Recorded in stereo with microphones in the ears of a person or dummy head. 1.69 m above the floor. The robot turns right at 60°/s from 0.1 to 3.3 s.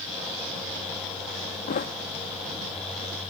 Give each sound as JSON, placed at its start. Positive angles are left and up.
{"t": 1.7, "sound": "a thud", "side_deg": 45}